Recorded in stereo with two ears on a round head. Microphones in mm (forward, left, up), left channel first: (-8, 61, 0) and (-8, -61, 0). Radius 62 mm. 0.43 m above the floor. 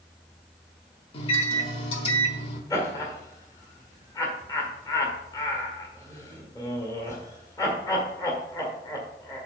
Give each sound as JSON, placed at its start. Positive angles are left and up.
{"t": 1.1, "sound": "a microwave", "side_deg": 40, "distance_m": 1.3}
{"t": 2.7, "sound": "laughter", "side_deg": 25, "distance_m": 1.7}